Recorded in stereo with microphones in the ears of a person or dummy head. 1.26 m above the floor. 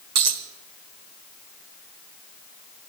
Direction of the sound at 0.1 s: 65° right (ahead or behind).